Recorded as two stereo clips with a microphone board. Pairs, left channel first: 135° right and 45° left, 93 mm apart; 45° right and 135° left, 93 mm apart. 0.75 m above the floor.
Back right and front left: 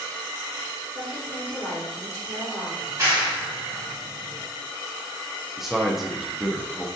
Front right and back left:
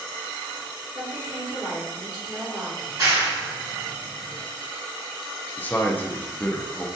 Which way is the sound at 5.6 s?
40° right.